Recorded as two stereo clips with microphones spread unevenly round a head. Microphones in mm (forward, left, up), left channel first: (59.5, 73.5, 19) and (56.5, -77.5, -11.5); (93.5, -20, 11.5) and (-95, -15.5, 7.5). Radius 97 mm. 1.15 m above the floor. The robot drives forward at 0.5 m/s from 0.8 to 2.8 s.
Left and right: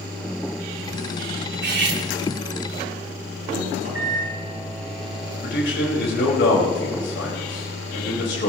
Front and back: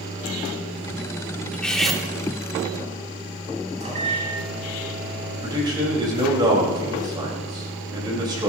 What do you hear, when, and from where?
1.5 s cutlery clinking: 85° right, 1.9 m; by 2.0 s 90° right, 1.9 m
3.8 s a microwave: 125° right, 6 m
5.4 s a man speaking: 110° left, 5.5 m